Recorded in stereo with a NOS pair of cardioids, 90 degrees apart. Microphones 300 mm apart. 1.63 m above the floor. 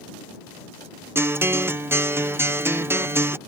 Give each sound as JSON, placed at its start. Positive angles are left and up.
{"t": 1.1, "sound": "a guitar", "azimuth_deg": -10}